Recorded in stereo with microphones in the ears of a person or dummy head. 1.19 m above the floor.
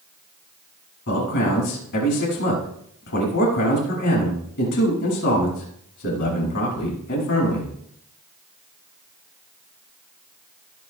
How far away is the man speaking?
About 6.5 m.